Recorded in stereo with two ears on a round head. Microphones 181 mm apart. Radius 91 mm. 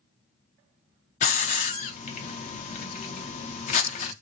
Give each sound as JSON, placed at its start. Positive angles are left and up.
{"t": 1.2, "sound": "a hiss", "side_deg": 35, "distance_m": 0.5}